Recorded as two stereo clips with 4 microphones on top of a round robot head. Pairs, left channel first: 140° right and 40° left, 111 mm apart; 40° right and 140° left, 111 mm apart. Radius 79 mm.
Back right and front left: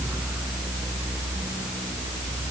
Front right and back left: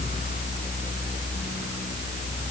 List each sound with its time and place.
Only background noise.